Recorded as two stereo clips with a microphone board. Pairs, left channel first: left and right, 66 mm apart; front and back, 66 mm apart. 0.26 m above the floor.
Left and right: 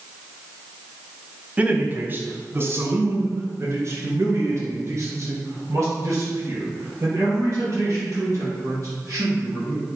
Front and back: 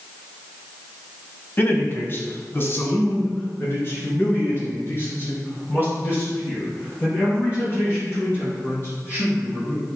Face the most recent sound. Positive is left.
turn(degrees=-50)